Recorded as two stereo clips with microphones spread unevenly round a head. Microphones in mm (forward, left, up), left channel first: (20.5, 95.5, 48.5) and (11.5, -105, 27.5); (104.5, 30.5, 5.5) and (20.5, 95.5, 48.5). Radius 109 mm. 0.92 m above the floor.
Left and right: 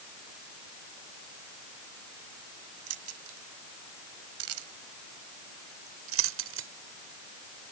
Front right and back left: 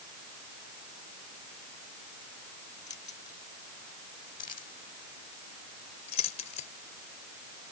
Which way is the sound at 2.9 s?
105° right.